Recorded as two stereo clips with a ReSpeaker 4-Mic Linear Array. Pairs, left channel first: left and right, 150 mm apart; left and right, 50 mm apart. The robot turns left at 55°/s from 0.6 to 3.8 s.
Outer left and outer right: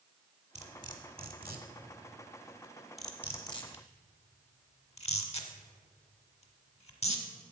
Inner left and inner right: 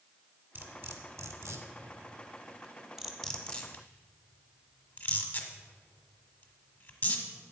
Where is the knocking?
No knocking in this recording.